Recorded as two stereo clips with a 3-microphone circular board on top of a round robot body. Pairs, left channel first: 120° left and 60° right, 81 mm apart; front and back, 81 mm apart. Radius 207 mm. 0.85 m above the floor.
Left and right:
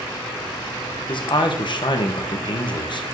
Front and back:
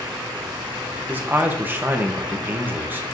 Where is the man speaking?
115° left, 1.0 m.